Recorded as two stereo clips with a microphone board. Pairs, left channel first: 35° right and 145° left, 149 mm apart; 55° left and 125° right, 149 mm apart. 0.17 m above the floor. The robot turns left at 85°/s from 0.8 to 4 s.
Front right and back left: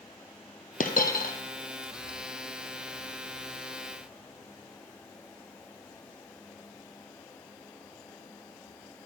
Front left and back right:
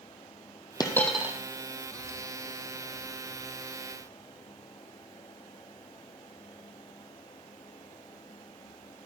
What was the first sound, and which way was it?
A dropped coin, 5° right.